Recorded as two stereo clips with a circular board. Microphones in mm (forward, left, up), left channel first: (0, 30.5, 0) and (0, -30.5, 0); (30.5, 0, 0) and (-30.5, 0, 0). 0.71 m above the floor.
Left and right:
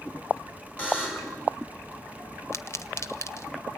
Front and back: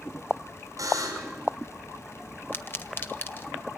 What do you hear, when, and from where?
0.8 s a buzzer: 155° left, 5.5 m
2.5 s a pop: 50° left, 0.9 m